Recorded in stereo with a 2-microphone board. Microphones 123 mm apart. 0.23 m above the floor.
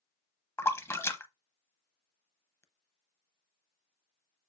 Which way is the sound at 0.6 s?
20° left (ahead or behind).